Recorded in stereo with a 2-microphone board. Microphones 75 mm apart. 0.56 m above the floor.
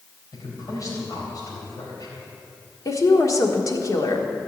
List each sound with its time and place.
0.3 s a man speaking: 50° left (ahead or behind), 3.5 m
2.9 s a woman speaking: 45° left (ahead or behind), 1.4 m